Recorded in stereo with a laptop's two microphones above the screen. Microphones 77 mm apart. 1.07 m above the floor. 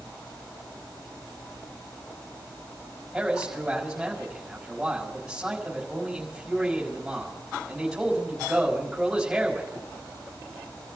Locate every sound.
3.1 s a man speaking: 5° right (ahead or behind), 5.5 m